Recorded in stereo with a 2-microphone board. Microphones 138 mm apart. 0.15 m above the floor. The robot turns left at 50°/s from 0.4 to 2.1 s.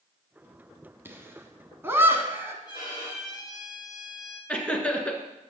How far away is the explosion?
I don't hear an explosion.